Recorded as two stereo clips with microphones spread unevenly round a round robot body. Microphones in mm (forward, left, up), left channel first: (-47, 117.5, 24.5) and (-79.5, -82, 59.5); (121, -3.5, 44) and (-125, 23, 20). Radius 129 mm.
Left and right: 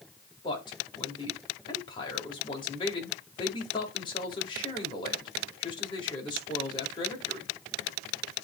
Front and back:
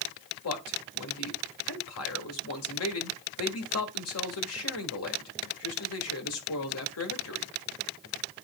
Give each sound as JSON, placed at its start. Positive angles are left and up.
{"t": 0.4, "sound": "a man speaking", "azimuth_deg": 15, "distance_m": 1.8}